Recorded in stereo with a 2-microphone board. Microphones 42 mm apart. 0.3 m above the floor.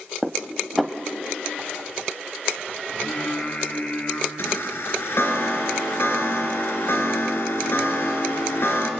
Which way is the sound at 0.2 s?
Centre (ahead or behind).